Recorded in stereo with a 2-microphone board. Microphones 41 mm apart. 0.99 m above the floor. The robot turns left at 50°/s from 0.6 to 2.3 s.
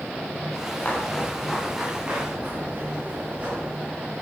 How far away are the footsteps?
About 6 m.